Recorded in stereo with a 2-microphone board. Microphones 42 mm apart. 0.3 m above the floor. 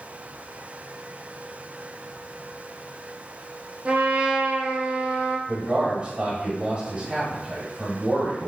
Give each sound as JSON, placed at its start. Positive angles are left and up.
{"t": 3.9, "sound": "a trumpet", "side_deg": -35, "distance_m": 0.8}
{"t": 5.5, "sound": "a man speaking", "side_deg": -35, "distance_m": 1.3}